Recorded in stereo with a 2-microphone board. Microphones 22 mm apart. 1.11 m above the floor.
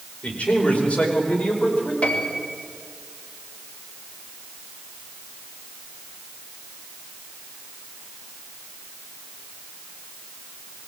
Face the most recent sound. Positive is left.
turn(degrees=65)  # may be behind; listen again after turning